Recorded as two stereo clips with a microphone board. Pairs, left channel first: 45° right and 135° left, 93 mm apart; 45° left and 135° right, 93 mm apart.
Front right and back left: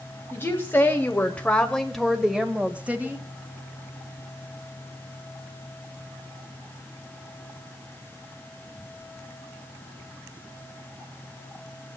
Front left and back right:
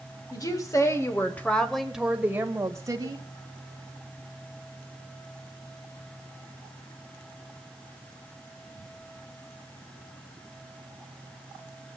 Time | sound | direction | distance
0.3 | a woman speaking | 15° left | 1.6 m